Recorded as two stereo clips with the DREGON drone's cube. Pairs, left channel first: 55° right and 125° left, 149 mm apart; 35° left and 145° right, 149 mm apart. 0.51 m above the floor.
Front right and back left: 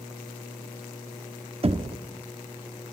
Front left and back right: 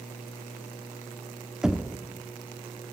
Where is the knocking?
130° left, 0.9 m.